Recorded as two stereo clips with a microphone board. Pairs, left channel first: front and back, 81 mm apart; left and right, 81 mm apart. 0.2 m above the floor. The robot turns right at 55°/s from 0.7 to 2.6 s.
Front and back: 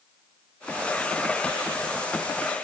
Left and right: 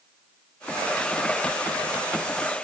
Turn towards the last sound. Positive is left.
No sound to turn to.